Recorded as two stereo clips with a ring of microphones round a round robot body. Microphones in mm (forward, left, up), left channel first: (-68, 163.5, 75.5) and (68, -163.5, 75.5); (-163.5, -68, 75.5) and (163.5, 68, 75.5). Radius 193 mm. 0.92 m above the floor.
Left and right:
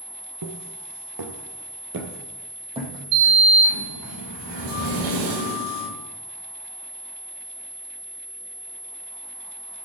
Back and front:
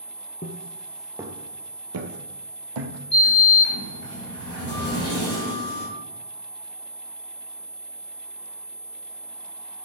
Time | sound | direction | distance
0.4 | footsteps | 95° right | 1.4 m
3.1 | a sliding door | 95° right | 5 m